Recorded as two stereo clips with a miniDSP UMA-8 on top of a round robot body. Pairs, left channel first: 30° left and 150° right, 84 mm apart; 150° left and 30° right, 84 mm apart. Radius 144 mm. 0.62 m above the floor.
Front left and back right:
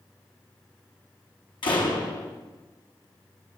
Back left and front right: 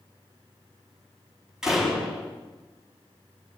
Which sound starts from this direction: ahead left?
A door slam, at 1.6 s.